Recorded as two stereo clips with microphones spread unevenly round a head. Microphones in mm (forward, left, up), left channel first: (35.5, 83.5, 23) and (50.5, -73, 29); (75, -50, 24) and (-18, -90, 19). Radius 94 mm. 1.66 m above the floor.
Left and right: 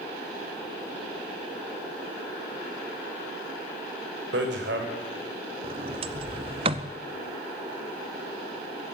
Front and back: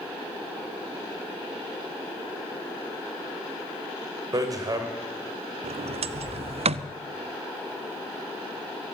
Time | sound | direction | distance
4.3 | hammering | 110° right | 3 m
5.6 | a sliding door | 145° right | 0.7 m